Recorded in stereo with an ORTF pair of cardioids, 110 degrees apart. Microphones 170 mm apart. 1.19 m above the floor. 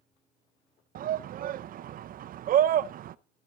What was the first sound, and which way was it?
A shout, 55° right.